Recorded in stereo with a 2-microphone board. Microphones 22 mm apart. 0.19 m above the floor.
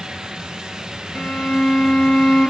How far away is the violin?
About 2 m.